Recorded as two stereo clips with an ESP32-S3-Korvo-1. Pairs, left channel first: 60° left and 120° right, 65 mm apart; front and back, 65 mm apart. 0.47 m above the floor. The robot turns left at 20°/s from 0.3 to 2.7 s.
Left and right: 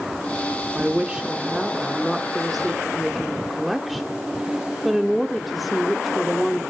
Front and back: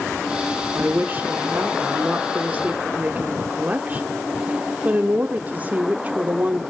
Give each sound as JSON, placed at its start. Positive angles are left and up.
{"t": 0.8, "sound": "a woman speaking", "azimuth_deg": -170, "distance_m": 0.8}